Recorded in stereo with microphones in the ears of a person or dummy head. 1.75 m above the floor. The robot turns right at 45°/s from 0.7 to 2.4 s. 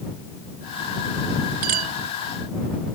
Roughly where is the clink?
Right.